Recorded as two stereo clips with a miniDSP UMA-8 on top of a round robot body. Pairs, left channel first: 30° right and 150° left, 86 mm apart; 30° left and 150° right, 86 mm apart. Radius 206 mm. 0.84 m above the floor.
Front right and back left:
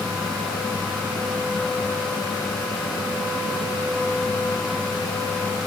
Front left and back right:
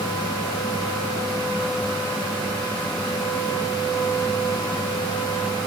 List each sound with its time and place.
Only background noise.